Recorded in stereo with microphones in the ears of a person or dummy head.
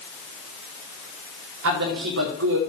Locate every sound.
1.6 s a man speaking: 70° right (ahead or behind), 4 m